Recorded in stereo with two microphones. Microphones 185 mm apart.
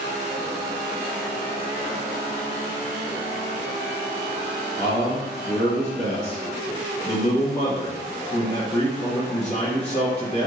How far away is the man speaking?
About 1.2 m.